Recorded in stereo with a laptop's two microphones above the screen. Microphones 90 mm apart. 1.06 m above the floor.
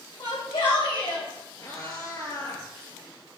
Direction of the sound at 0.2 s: 65° left (ahead or behind).